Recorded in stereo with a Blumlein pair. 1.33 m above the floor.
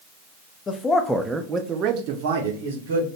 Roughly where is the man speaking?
Ahead left.